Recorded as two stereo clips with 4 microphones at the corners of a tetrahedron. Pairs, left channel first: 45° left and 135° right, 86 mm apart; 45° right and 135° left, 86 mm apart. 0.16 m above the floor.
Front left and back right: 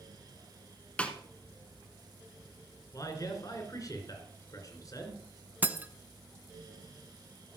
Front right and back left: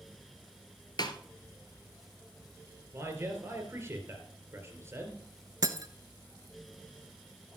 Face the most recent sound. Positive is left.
turn(degrees=160)